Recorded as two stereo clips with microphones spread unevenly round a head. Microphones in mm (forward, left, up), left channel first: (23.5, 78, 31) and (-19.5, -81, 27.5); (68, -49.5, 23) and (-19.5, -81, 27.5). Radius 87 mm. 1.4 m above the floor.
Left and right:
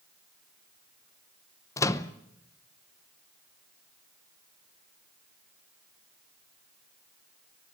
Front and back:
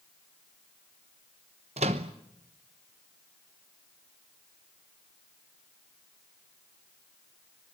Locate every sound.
1.8 s a microwave: 150° left, 0.8 m